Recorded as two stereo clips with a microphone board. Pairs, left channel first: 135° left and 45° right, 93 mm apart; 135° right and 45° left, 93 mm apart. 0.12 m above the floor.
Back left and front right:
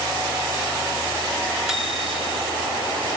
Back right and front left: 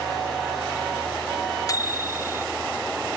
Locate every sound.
1.7 s a microwave: 130° right, 1.3 m